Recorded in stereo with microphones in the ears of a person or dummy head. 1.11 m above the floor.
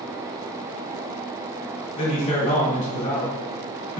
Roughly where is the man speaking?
Left.